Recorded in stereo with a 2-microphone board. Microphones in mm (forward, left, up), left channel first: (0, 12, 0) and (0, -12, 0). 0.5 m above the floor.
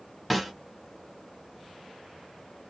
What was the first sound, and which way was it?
A snare drum, 5° left (ahead or behind).